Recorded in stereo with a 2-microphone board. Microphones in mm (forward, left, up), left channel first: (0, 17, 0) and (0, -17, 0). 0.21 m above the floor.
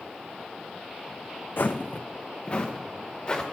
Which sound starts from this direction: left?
Footsteps, at 1.6 s.